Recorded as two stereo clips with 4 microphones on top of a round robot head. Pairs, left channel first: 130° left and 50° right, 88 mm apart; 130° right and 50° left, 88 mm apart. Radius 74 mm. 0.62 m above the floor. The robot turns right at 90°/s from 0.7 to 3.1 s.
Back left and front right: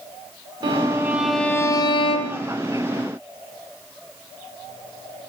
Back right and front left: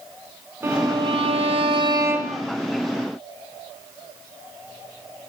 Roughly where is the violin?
Ahead.